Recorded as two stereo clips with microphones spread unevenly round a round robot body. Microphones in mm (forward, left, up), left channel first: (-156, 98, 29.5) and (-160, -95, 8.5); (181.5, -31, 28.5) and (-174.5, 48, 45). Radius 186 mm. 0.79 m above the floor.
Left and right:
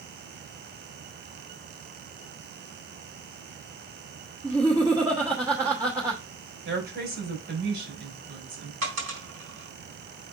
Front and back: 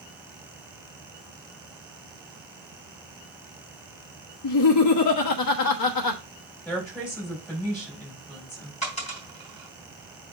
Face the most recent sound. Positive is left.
turn(degrees=-85)